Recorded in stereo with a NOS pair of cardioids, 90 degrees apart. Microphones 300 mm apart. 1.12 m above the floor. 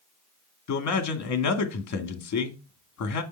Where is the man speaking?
65° left, 2.0 m.